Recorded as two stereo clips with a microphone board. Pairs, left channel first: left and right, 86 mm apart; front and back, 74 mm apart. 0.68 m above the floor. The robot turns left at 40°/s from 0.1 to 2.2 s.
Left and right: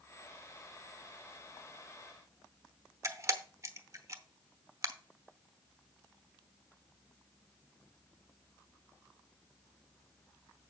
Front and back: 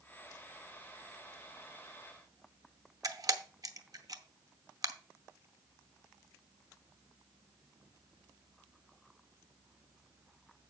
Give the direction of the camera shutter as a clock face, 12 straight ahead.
5 o'clock.